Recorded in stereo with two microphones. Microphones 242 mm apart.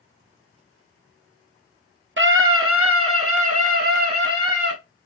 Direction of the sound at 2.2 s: 55° right (ahead or behind).